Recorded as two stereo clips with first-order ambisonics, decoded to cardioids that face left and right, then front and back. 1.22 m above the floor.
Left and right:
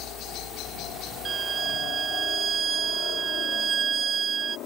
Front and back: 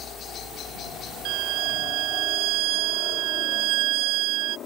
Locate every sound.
0.0 s a helicopter: 55° left; by 4.7 s 50° left
1.2 s a violin: 155° right